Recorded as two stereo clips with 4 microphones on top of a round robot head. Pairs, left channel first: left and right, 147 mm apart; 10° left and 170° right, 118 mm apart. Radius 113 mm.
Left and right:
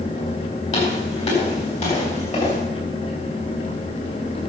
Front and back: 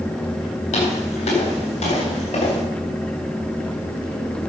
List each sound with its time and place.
0.7 s footsteps: 45° left, 8 m